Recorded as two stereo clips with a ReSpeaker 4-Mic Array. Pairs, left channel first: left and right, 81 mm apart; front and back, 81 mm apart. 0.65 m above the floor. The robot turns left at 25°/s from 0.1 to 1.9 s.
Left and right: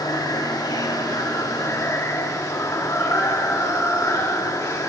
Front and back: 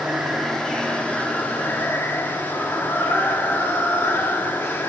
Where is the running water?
95° left, 1.0 m; by 4.9 s 50° left, 1.0 m.